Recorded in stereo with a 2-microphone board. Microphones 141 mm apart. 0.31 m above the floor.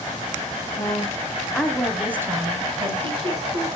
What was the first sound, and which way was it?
A woman speaking, 30° left (ahead or behind).